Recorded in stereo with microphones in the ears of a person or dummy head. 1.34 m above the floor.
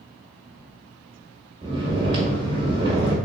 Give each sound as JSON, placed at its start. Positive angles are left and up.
{"t": 1.6, "sound": "snoring", "side_deg": -30, "distance_m": 1.5}